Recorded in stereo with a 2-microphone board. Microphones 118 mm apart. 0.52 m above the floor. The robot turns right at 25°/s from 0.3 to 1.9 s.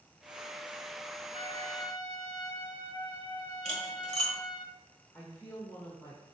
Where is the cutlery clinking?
75° left (ahead or behind), 1.4 m.